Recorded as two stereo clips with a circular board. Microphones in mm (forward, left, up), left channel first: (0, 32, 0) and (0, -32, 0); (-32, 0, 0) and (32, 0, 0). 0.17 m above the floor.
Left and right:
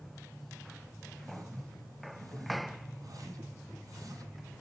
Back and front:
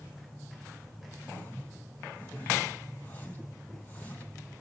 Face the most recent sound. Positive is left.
turn(degrees=-120)